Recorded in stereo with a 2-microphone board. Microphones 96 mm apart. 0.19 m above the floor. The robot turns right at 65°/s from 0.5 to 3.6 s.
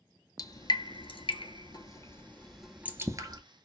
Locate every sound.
0.4 s dripping: 45° left (ahead or behind), 0.8 m; by 3.4 s 50° right (ahead or behind), 0.8 m